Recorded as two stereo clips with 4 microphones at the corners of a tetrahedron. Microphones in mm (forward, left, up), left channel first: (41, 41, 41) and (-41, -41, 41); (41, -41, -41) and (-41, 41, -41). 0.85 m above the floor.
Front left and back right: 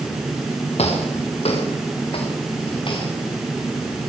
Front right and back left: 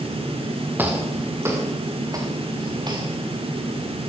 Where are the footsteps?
65° left, 6 m; by 3.1 s 90° left, 6.5 m.